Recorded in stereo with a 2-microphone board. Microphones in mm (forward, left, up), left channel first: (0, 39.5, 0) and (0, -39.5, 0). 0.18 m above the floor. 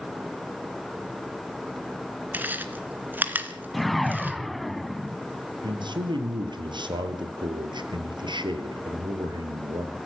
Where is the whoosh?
Centre (ahead or behind), 0.6 m.